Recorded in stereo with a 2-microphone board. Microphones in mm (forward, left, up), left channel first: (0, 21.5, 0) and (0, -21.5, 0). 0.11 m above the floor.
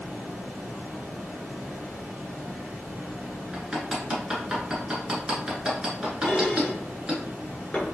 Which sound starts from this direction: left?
Dishes clattering, at 6.2 s.